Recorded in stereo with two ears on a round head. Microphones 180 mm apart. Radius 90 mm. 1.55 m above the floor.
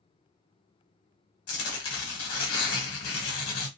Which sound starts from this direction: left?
Tearing paper, at 1.5 s.